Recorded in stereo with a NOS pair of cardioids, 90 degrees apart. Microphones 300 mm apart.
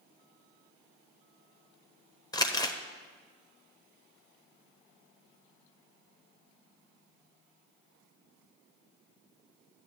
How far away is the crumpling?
About 1.0 m.